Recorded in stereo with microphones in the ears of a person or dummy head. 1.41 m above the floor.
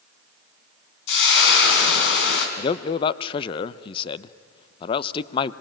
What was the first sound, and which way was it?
Frying, 70° left (ahead or behind).